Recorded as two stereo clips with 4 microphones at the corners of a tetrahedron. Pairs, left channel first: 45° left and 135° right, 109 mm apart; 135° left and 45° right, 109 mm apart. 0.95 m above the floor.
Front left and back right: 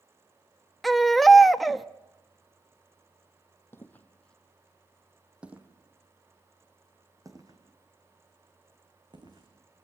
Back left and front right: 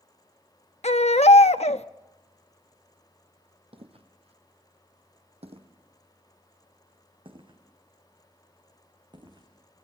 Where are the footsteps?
20° right, 2.5 m; by 9.5 s 90° right, 5 m.